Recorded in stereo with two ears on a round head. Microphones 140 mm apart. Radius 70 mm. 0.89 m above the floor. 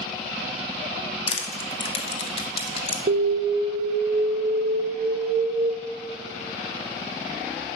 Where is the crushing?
40° left (ahead or behind), 1.3 m.